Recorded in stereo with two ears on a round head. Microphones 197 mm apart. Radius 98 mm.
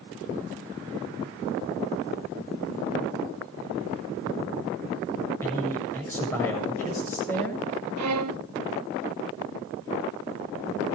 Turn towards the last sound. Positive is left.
turn(degrees=-85)